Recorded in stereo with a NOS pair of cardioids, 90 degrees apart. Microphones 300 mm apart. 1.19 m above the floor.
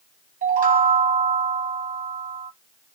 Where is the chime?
30° right, 0.7 m.